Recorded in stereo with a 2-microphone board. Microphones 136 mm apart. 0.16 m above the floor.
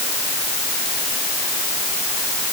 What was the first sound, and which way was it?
Only background noise.